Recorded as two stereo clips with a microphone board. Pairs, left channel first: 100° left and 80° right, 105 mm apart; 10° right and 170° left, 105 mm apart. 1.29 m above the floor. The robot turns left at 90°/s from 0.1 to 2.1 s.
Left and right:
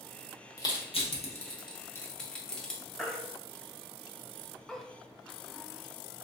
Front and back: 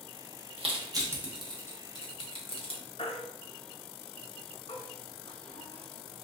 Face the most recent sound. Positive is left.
turn(degrees=15)